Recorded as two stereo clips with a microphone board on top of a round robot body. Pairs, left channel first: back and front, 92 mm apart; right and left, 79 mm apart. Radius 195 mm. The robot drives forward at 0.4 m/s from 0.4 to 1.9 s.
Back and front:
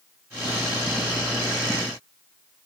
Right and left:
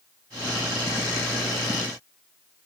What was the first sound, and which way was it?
Only background noise.